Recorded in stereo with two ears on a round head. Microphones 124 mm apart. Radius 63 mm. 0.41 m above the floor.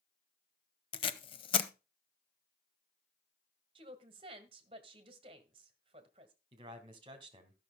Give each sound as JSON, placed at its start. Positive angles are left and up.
{"t": 0.9, "sound": "tape being pulled", "side_deg": 40, "distance_m": 0.8}
{"t": 3.8, "sound": "a woman speaking", "side_deg": -40, "distance_m": 1.7}
{"t": 6.5, "sound": "a man speaking", "side_deg": -35, "distance_m": 2.0}